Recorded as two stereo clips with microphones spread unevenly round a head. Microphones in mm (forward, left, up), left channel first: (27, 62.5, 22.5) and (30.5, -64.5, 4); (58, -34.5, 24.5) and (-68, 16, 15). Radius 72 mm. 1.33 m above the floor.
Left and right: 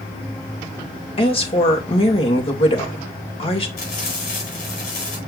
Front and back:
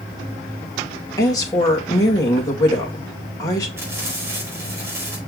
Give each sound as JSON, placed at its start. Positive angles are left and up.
{"t": 1.2, "sound": "a woman speaking", "azimuth_deg": 45, "distance_m": 2.5}
{"t": 3.8, "sound": "frying", "azimuth_deg": 85, "distance_m": 4.5}